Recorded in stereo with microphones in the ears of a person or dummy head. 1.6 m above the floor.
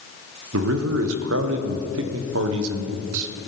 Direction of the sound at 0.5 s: 75° right (ahead or behind).